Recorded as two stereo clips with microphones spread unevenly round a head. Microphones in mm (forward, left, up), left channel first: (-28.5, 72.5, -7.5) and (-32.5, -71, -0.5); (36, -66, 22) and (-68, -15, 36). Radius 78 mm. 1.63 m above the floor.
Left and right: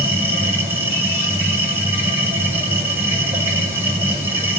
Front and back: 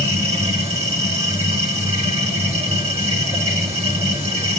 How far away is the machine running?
About 5 m.